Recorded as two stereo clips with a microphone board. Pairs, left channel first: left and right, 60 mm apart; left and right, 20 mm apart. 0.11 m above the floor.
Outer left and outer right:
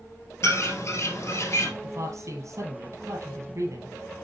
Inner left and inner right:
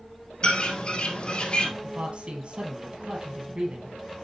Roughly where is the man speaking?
Right.